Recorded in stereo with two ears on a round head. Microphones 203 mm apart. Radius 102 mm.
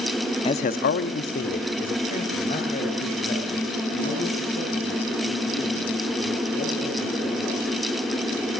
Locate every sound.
0.5 s a man speaking: 20° left (ahead or behind), 0.8 m; by 7.6 s 30° left (ahead or behind), 9.5 m